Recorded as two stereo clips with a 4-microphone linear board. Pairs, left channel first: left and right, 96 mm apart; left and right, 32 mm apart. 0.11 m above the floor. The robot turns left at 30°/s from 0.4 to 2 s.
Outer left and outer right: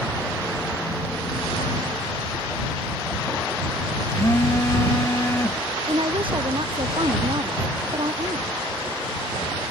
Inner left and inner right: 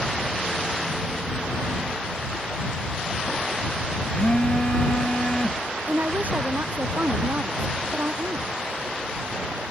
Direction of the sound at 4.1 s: 25° left (ahead or behind).